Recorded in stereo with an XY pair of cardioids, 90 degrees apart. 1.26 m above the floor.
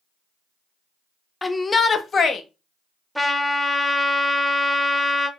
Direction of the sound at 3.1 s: 5° left.